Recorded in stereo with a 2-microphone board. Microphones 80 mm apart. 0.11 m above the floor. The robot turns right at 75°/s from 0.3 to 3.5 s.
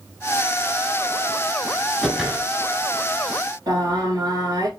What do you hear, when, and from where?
2.0 s a whoosh: centre (ahead or behind), 1.0 m; by 2.5 s 15° right (ahead or behind), 1.0 m
3.7 s singing: 55° right (ahead or behind), 2.5 m